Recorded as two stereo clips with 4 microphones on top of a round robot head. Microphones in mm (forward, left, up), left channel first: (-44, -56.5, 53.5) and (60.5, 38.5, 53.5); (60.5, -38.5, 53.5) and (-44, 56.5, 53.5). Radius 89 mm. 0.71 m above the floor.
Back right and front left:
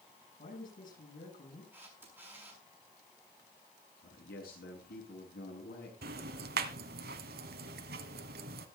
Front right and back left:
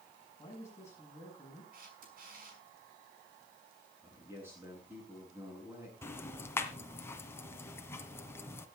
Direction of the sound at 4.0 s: 145° right.